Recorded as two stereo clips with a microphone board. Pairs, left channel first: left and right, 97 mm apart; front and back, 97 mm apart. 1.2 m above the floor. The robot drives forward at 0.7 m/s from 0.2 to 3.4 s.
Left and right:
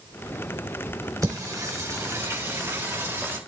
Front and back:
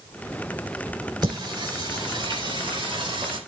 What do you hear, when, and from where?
1.2 s singing: 140° right, 3.5 m; by 3.4 s 155° right, 4.5 m